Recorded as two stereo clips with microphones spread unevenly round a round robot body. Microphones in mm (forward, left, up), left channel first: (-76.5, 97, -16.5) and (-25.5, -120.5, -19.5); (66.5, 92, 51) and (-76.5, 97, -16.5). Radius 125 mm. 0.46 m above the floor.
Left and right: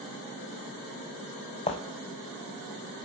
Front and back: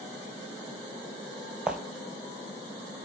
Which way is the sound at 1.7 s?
60° left.